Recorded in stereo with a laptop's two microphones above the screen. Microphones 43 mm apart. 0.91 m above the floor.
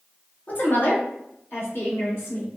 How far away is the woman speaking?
About 1.0 m.